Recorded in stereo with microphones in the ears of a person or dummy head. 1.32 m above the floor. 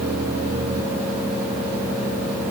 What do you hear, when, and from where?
Only background noise.